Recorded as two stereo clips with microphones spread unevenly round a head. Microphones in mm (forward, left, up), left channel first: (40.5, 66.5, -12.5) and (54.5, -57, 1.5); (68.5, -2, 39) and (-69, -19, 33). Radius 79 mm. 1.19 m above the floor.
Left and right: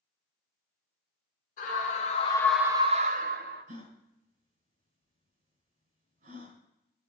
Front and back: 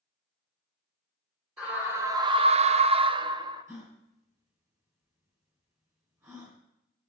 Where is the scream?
105° left, 1.0 m; by 3.6 s 110° right, 1.2 m.